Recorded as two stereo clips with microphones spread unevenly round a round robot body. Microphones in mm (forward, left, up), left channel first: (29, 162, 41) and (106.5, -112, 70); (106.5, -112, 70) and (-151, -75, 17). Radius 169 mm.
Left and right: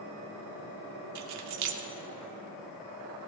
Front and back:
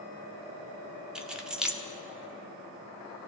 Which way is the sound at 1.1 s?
105° right.